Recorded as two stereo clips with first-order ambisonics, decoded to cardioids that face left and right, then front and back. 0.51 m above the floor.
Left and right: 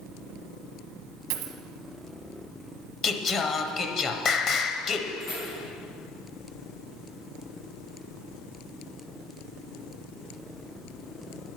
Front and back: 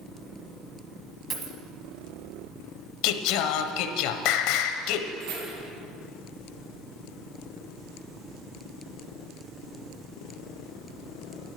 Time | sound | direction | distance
1.3 | a dropped coin | 110° right | 1.1 m
3.0 | singing | 20° left | 0.7 m
5.2 | keys jangling | 155° left | 4 m